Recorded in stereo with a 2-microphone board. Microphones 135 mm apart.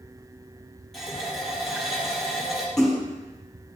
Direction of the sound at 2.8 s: 5° left (ahead or behind).